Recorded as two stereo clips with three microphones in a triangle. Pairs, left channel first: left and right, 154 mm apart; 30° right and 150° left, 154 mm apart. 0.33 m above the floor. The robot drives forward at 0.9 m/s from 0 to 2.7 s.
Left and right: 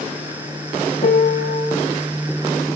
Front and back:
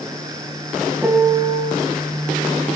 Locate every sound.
1.0 s a piano: 70° left, 0.9 m; by 1.7 s 115° left, 0.9 m